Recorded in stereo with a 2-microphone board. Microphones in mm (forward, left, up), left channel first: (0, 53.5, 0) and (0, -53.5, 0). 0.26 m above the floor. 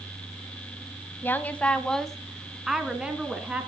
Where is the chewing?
No chewing in this recording.